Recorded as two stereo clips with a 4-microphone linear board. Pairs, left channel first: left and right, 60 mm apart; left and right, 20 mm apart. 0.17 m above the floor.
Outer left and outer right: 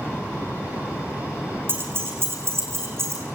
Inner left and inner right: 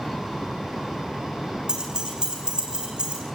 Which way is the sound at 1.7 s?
40° right (ahead or behind).